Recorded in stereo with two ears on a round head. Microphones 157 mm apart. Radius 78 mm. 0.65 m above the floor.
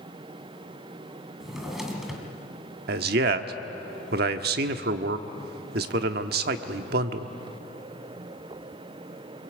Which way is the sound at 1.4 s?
Centre (ahead or behind).